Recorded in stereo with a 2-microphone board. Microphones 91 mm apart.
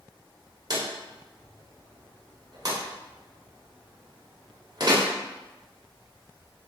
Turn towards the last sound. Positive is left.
turn(degrees=-45)  # may be behind; listen again after turning